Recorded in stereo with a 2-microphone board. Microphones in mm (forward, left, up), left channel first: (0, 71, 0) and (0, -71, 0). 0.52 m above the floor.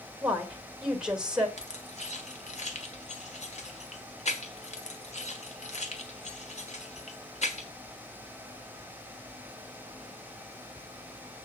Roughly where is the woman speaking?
Centre.